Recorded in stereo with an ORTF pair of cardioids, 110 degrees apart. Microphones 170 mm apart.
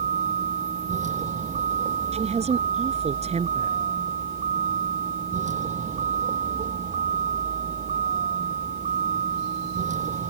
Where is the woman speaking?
40° right.